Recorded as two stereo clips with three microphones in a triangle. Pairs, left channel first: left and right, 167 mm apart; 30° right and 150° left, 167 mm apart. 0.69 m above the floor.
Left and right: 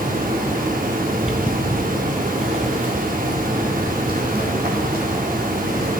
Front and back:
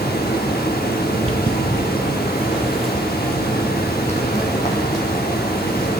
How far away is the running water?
About 0.7 m.